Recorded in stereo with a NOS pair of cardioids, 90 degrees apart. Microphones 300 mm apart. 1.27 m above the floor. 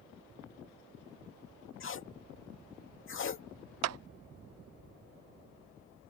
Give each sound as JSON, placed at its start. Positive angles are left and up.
{"t": 1.8, "sound": "tape being pulled", "azimuth_deg": 45}
{"t": 3.8, "sound": "a clap", "azimuth_deg": -60}